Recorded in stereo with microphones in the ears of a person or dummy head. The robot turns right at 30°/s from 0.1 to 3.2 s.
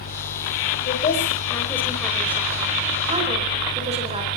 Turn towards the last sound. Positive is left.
turn(degrees=-150)